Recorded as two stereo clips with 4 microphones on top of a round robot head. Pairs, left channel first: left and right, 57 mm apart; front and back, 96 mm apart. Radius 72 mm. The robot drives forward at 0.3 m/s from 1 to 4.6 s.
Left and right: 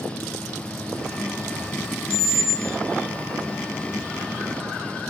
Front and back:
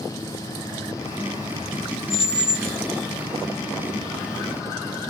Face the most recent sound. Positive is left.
turn(degrees=120)